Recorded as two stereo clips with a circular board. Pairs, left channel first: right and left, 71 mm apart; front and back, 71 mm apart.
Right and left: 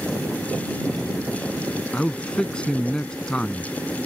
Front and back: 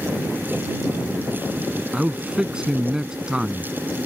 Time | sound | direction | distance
1.9 | a man speaking | 130° right | ?